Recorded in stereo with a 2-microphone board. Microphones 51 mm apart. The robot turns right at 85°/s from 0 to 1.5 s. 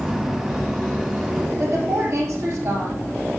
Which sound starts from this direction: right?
A woman speaking, at 1.6 s.